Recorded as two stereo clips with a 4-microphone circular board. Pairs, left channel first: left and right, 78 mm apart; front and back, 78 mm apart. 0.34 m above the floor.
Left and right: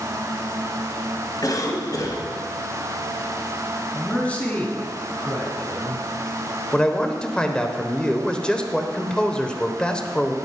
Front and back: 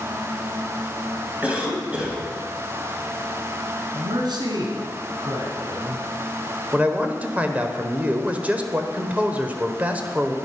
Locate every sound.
1.4 s a cough: 110° left, 2.5 m
3.9 s a man speaking: 165° left, 2.5 m
6.7 s a man speaking: 150° left, 0.9 m